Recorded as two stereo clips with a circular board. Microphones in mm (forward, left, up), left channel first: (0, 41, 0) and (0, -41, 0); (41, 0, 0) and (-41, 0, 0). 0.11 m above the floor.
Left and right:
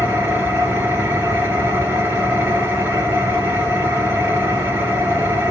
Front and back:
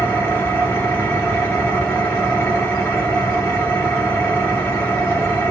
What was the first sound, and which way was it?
An engine running, 45° right.